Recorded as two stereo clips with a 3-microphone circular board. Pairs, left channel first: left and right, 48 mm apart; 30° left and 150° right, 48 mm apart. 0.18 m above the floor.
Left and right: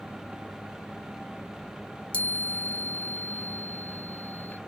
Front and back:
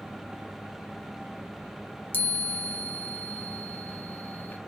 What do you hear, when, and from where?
2.1 s a chime: 40° left, 0.5 m